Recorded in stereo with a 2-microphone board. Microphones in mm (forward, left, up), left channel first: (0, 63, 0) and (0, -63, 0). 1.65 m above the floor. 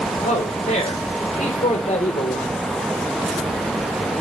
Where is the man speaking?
75° left (ahead or behind), 1.2 m.